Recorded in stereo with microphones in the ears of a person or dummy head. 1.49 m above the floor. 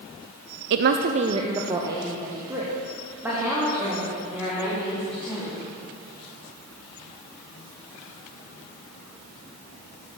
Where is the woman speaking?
60° right (ahead or behind), 0.6 m; by 5.6 s centre (ahead or behind), 5.5 m.